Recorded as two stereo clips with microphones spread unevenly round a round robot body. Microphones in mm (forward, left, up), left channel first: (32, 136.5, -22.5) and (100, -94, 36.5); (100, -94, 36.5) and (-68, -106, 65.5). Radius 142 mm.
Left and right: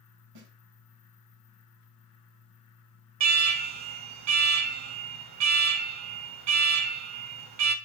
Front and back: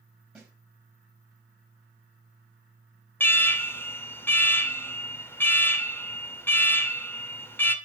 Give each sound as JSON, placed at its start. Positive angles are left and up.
{"t": 0.3, "sound": "a snare drum", "azimuth_deg": -90, "distance_m": 3.5}
{"t": 3.2, "sound": "an alarm", "azimuth_deg": -70, "distance_m": 1.3}